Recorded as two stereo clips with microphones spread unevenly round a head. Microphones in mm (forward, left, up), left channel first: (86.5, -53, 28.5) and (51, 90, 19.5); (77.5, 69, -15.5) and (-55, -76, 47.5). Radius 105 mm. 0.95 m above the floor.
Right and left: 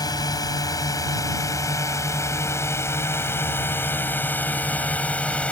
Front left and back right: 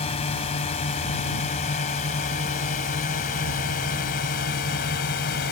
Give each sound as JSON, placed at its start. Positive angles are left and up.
{"t": 0.0, "sound": "a drone", "azimuth_deg": -15}